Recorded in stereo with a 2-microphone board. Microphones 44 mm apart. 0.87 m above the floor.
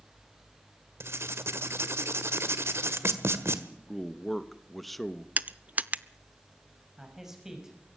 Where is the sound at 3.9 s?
Centre (ahead or behind), 1.1 m.